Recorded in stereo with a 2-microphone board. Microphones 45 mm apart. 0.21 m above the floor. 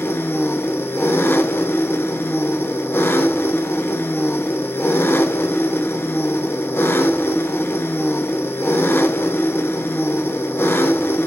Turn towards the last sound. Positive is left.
turn(degrees=55)  # may be behind; listen again after turning